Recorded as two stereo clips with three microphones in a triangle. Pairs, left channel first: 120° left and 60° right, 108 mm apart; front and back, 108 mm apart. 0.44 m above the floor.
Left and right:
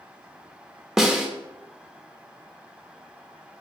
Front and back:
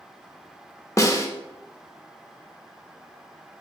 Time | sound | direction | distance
1.0 | a snare drum | 25° left | 0.6 m